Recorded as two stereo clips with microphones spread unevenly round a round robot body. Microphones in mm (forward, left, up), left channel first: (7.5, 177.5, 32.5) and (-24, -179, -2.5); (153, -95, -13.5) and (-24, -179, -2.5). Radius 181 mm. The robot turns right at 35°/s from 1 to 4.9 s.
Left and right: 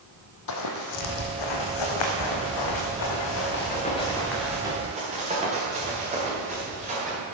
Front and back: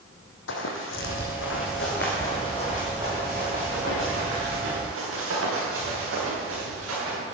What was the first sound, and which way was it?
Running footsteps, 50° left.